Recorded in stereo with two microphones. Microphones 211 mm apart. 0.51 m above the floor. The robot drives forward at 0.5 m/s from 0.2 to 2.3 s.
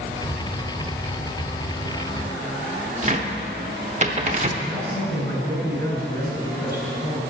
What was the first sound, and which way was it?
A cupboard door, 35° right (ahead or behind).